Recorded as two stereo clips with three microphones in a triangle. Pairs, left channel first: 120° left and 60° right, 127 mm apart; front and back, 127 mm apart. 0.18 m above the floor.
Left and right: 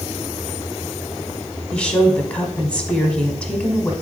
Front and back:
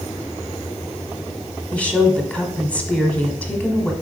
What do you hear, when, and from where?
1.7 s a woman speaking: 60° left, 1.0 m